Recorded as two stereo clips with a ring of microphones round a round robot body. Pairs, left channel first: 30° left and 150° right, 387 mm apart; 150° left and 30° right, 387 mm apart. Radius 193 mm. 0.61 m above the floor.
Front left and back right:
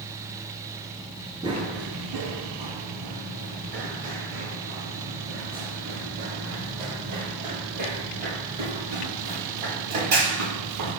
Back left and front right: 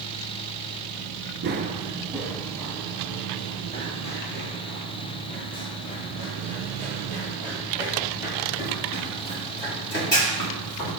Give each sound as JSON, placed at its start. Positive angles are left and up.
{"t": 1.4, "sound": "running footsteps", "azimuth_deg": -75, "distance_m": 0.7}